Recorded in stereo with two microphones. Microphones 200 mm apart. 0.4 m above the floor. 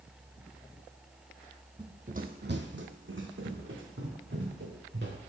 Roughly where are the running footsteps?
Right.